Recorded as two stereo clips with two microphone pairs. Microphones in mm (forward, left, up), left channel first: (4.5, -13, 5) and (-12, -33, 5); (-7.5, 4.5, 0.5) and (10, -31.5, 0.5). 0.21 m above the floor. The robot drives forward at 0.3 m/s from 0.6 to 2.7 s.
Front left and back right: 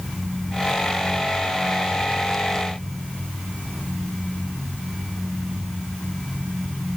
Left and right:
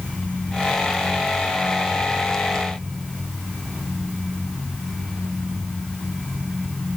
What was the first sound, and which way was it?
Only background noise.